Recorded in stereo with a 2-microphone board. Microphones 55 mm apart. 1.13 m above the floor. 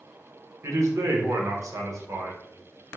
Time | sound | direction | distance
0.6 | a man speaking | 55° right (ahead or behind) | 0.9 m